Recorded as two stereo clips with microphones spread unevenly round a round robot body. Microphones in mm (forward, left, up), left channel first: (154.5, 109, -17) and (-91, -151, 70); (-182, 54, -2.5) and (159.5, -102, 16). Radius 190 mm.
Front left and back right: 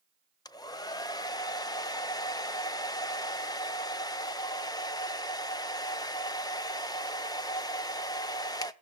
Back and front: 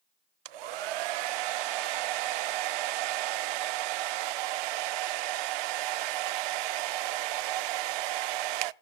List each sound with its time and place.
0.5 s a hair dryer: 40° right, 0.5 m